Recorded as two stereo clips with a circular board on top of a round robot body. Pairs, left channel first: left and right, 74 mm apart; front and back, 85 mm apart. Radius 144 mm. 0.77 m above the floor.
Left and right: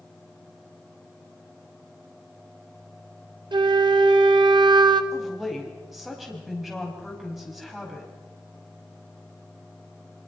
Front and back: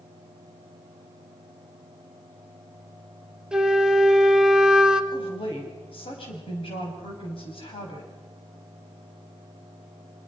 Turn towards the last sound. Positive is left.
turn(degrees=-5)